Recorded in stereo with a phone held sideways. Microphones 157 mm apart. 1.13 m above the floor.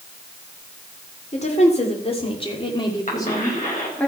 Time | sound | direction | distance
1.3 | a woman speaking | 45° left (ahead or behind) | 3.5 m
3.1 | a cough | 50° left (ahead or behind) | 6 m